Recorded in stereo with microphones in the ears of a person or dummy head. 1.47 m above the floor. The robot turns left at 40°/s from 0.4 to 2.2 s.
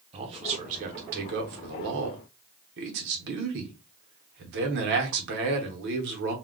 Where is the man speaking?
40° right, 0.8 m; by 6.3 s 110° right, 0.8 m.